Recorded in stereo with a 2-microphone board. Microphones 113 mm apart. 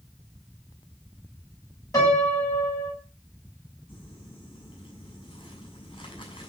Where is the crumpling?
50° left (ahead or behind), 8 m.